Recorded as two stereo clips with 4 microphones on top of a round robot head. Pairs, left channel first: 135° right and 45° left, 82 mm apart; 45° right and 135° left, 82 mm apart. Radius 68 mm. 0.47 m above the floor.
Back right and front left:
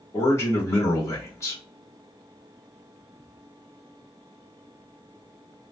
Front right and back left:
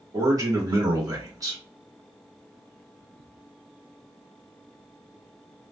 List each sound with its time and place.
0.1 s a man speaking: 175° left, 1.4 m